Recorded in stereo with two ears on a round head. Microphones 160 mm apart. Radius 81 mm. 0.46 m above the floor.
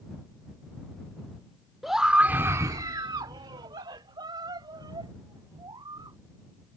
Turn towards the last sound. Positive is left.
turn(degrees=-20)  # may be behind; listen again after turning